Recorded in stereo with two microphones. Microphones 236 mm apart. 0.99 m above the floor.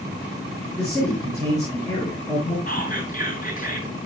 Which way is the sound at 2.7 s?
35° left (ahead or behind).